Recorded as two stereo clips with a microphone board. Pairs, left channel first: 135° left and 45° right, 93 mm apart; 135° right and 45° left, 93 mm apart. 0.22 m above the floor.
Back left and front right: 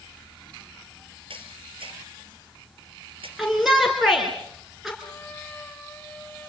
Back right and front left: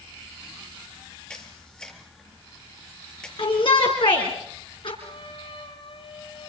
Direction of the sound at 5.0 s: 155° right.